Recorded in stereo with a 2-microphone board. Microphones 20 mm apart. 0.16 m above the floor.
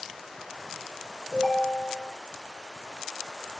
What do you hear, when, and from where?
1.3 s a ringtone: 5° left (ahead or behind), 1.1 m